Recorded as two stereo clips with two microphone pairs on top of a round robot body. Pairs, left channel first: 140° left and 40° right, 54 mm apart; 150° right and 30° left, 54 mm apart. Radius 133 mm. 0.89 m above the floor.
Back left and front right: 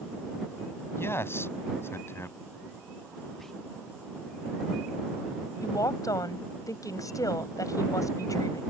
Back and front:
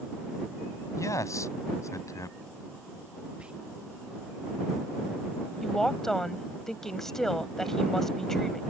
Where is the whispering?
55° left.